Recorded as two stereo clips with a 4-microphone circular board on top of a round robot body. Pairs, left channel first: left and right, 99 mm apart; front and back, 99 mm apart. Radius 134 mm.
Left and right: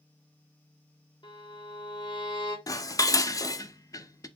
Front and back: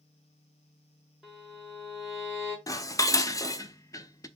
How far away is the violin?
About 2.0 m.